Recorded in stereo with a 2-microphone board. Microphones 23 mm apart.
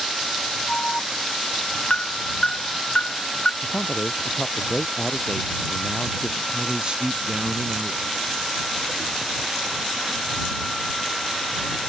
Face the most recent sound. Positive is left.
turn(degrees=-45)  # may be behind; listen again after turning